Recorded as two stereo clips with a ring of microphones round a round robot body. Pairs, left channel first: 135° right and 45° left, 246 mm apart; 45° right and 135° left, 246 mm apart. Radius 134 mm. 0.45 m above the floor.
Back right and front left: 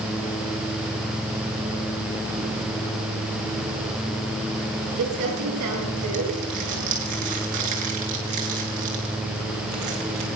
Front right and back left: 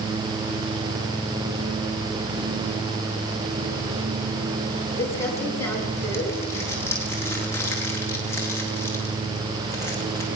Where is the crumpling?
35° left, 7.5 m.